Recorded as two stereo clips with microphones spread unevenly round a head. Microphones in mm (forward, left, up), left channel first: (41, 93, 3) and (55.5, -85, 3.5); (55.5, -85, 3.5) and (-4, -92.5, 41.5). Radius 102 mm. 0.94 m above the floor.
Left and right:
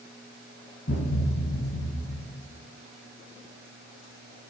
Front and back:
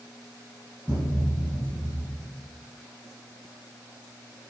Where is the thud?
125° left, 1.8 m.